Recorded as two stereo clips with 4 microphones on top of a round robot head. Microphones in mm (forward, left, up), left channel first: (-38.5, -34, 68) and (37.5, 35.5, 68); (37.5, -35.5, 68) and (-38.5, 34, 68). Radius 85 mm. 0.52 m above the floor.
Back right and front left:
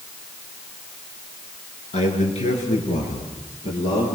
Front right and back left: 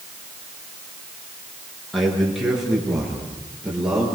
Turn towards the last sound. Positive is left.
turn(degrees=-140)